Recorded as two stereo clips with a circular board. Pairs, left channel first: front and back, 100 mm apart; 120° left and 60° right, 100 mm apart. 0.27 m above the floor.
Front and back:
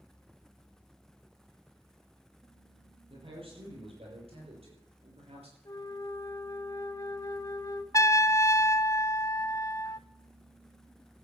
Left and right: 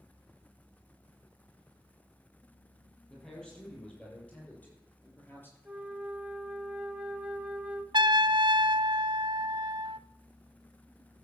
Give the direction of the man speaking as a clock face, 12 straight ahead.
5 o'clock.